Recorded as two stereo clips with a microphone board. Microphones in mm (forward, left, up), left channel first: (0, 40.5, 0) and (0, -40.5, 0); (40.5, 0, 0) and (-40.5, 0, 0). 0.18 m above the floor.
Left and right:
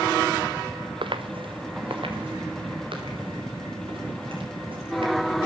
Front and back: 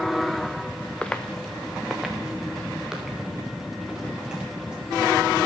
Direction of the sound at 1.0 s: 80° right.